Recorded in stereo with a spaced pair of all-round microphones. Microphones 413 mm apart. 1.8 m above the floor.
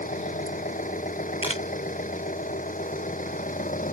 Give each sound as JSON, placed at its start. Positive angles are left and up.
{"t": 0.0, "sound": "an engine running", "side_deg": 20}
{"t": 1.4, "sound": "a camera shutter", "side_deg": -50}